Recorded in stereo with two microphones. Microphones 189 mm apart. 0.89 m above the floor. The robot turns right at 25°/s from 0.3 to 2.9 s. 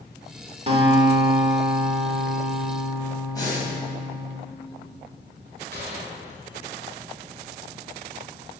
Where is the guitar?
35° right, 1.6 m; by 4.3 s 20° left, 1.6 m.